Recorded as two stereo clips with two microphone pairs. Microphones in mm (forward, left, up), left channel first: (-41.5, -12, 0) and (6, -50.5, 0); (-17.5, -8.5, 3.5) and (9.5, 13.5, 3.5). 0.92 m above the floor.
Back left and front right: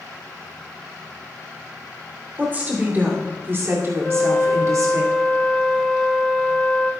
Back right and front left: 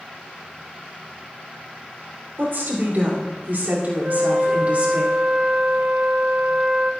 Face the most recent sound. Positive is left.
turn(degrees=65)